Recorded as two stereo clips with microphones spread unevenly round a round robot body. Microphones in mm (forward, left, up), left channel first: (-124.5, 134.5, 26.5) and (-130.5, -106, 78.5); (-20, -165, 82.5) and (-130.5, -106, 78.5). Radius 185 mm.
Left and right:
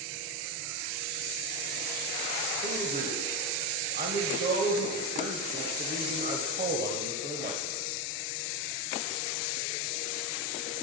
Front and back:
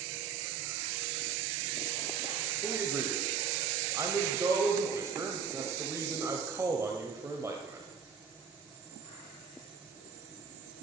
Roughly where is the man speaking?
Behind right.